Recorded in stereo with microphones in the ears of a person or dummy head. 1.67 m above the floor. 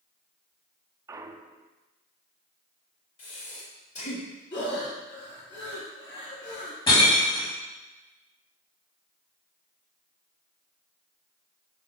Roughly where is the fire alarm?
No fire alarm in this recording.